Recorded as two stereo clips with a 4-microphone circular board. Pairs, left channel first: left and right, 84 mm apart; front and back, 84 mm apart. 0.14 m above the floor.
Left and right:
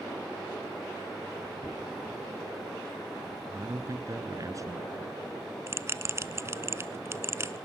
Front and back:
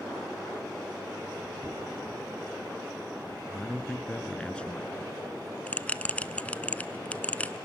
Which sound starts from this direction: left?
A dropped coin, at 1.6 s.